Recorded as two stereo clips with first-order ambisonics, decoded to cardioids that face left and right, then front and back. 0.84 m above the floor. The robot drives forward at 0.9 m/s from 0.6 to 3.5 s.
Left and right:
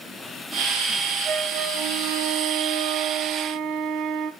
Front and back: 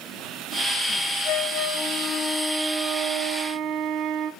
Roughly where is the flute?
Ahead right.